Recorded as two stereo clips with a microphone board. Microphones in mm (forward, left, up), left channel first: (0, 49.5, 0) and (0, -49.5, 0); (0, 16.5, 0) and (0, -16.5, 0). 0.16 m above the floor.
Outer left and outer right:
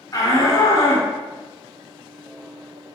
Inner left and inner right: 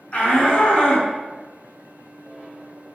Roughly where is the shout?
Left.